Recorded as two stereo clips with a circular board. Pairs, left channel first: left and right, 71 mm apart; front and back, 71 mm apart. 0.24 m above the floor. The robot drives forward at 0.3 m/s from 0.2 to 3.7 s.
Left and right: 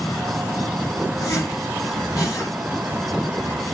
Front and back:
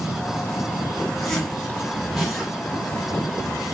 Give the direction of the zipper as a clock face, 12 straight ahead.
9 o'clock.